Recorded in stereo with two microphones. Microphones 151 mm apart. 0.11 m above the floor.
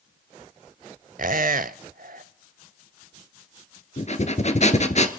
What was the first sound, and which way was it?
A squeak, 65° right (ahead or behind).